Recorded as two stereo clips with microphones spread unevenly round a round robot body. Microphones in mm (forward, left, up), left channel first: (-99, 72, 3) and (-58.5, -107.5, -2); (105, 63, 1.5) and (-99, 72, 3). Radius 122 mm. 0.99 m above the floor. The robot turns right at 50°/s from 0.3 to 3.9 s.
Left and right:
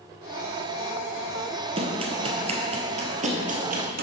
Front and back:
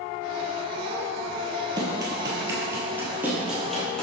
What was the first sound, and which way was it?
Running footsteps, 120° right.